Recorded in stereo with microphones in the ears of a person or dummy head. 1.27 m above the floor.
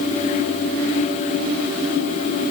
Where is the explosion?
I don't hear an explosion.